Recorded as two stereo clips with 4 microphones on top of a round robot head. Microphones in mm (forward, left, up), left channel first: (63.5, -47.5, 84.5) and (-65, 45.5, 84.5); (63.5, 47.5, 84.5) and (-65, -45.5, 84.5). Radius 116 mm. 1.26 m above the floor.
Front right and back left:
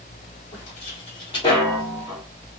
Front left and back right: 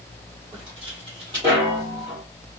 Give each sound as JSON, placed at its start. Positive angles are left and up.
{"t": 0.5, "sound": "footsteps", "azimuth_deg": -85, "distance_m": 2.0}